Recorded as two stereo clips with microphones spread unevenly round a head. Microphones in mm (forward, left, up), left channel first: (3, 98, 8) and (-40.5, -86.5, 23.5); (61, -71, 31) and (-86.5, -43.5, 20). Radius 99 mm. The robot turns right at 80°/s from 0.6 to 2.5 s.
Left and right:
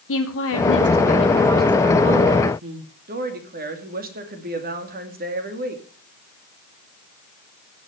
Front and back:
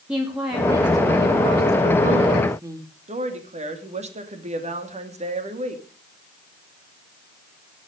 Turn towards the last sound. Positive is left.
turn(degrees=-145)